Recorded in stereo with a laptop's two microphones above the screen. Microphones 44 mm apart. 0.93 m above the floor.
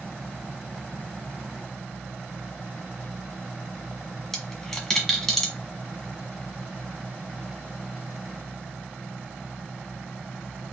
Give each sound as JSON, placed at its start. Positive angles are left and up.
{"t": 4.3, "sound": "a dropped coin", "side_deg": 5, "distance_m": 1.6}